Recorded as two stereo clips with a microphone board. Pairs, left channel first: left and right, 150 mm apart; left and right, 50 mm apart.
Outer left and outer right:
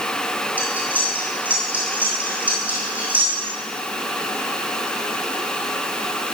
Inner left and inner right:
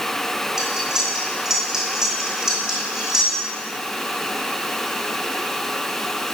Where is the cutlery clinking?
10° right (ahead or behind), 3 m.